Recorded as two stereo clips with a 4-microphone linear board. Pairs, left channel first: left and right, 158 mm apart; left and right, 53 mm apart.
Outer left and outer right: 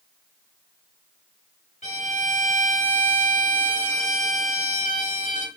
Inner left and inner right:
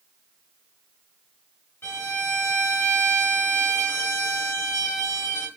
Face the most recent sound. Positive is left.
turn(degrees=50)  # may be behind; listen again after turning